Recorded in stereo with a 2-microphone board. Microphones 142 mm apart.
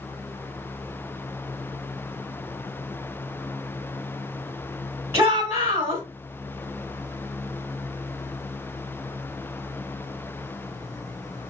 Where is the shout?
15° right (ahead or behind), 1.1 m.